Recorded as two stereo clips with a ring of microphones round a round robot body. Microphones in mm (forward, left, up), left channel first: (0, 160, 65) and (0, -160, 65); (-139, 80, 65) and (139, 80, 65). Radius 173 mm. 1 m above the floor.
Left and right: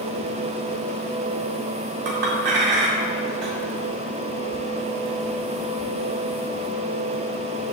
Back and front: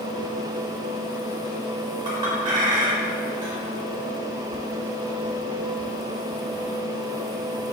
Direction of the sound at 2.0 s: 75° right.